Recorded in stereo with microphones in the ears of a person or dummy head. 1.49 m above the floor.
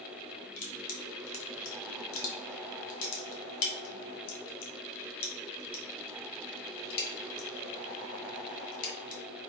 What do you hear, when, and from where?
0.6 s crushing: 75° left (ahead or behind), 1.1 m